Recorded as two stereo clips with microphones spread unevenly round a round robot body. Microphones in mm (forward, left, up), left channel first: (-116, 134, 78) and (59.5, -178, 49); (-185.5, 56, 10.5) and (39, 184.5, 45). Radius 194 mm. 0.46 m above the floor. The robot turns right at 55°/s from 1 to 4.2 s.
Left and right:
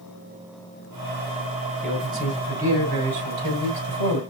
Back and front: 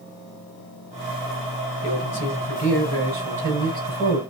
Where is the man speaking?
155° right, 4 m; by 4.2 s 25° right, 4 m.